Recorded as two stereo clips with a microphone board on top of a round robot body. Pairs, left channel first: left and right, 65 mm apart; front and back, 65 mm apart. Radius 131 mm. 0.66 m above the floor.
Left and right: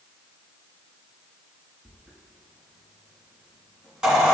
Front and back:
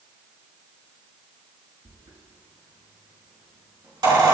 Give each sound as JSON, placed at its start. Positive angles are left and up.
{"t": 1.9, "sound": "a squeak", "azimuth_deg": -170, "distance_m": 4.0}